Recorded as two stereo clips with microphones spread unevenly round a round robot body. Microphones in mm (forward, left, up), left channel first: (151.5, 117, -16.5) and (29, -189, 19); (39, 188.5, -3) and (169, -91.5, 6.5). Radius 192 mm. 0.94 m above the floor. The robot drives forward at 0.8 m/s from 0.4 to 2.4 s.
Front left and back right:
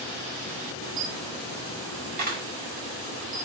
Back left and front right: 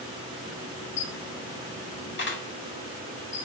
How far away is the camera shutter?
About 1.2 m.